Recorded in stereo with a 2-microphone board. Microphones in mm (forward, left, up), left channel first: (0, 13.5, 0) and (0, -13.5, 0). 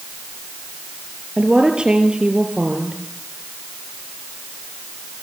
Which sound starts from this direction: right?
A woman speaking, at 1.4 s.